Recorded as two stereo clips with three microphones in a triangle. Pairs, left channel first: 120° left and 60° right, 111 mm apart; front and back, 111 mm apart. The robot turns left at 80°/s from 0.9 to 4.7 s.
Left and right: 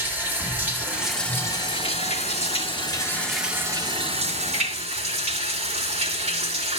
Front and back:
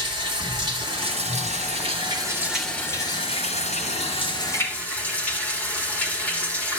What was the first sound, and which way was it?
Running water, 135° right.